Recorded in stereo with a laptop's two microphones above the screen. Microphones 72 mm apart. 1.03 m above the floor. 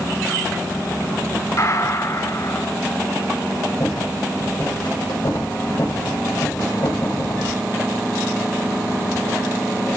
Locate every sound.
1.6 s a gunshot: 50° left (ahead or behind), 4 m
3.8 s a rattle: 80° left, 5 m